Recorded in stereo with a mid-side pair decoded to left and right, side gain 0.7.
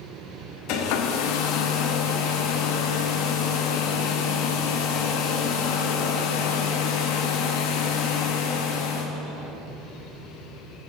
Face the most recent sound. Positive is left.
turn(degrees=70)